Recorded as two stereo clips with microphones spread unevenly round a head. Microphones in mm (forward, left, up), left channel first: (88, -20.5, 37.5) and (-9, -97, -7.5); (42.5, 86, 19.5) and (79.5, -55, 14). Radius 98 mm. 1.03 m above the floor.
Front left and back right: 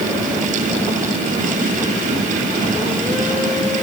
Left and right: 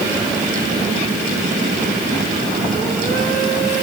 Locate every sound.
Only background noise.